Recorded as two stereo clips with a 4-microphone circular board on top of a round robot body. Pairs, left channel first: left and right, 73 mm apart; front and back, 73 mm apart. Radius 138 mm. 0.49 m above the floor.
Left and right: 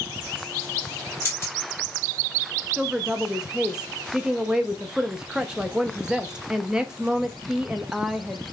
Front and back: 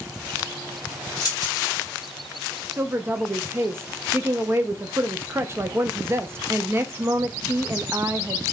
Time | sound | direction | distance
1.2 | keys jangling | 35° left | 3 m
2.8 | a woman speaking | 160° right | 0.7 m